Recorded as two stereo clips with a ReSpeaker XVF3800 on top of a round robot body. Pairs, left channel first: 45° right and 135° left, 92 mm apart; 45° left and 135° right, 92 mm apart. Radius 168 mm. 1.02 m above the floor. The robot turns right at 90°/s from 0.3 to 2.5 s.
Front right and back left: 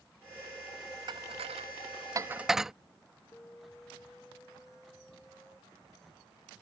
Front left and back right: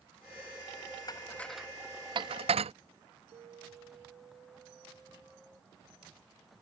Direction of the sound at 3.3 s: 115° right.